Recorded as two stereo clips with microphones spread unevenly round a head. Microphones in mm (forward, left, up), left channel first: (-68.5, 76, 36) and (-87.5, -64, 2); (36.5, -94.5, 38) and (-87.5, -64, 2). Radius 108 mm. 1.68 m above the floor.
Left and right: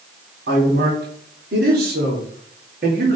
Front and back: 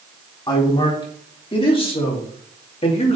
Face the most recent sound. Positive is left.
turn(degrees=-45)